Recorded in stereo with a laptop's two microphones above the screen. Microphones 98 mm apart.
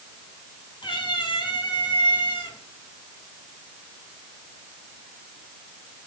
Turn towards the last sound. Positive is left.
turn(degrees=60)  # may be behind; listen again after turning